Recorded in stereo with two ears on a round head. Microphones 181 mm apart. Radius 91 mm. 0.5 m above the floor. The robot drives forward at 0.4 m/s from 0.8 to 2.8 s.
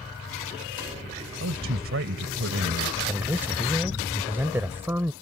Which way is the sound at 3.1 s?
10° right (ahead or behind).